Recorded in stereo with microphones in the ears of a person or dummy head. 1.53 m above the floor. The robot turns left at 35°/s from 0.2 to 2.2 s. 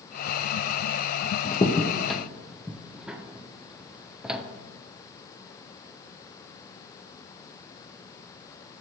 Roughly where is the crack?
Left.